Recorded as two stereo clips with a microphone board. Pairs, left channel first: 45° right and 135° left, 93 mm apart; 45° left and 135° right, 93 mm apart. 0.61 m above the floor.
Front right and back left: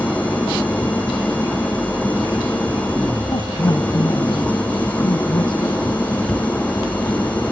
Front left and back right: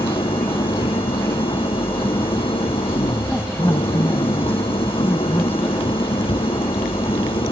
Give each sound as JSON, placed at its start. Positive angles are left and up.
{"t": 0.0, "sound": "an engine running", "azimuth_deg": 30}
{"t": 3.3, "sound": "a woman speaking", "azimuth_deg": -20}
{"t": 6.2, "sound": "a cupboard door", "azimuth_deg": 45}